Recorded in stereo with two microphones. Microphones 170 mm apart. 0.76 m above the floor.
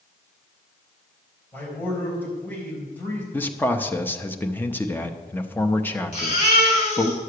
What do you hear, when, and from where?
1.5 s a man speaking: 10° left (ahead or behind), 4 m
3.3 s a man speaking: 10° left (ahead or behind), 0.7 m
6.1 s a baby crying: 45° left (ahead or behind), 3.5 m